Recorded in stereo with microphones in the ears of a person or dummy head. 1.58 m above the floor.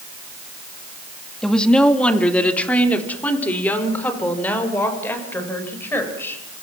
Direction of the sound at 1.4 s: 5° left (ahead or behind).